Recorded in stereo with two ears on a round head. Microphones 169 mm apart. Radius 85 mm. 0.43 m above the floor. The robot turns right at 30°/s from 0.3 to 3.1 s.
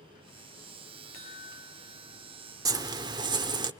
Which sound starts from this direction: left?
A chime, at 1.1 s.